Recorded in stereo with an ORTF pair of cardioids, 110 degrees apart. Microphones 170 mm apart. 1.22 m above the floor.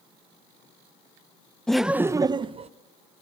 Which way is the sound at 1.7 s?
5° left.